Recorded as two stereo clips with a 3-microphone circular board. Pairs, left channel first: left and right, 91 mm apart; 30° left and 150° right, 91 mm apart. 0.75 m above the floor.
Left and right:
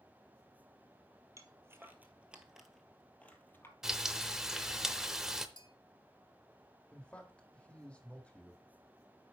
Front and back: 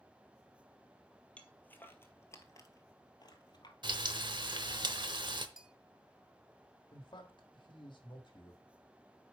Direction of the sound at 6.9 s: 15° left.